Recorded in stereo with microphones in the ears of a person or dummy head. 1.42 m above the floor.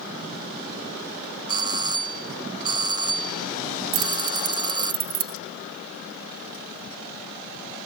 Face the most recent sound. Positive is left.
turn(degrees=-55)  # may be behind; listen again after turning